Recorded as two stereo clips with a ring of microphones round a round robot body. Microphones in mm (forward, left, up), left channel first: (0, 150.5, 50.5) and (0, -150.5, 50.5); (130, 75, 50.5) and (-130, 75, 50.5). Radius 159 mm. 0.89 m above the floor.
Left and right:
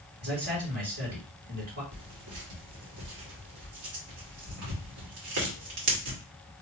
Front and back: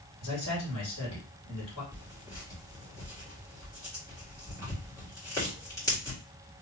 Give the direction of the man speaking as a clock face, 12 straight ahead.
2 o'clock.